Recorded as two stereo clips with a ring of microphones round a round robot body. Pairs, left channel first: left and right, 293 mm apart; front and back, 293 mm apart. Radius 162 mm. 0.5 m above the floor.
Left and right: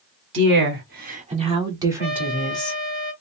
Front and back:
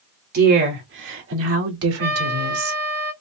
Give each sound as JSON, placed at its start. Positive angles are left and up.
{"t": 0.3, "sound": "a woman speaking", "azimuth_deg": -130, "distance_m": 1.7}
{"t": 2.0, "sound": "a trumpet", "azimuth_deg": -150, "distance_m": 2.0}